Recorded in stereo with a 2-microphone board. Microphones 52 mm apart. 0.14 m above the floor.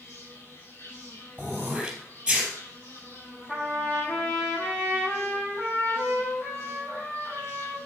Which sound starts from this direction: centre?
Throat clearing, at 1.4 s.